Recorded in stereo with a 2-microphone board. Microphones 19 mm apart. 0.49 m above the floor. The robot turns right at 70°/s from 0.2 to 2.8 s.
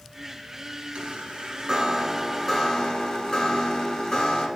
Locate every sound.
0.9 s a chime: 90° right, 1.2 m; by 4.5 s 40° left, 1.2 m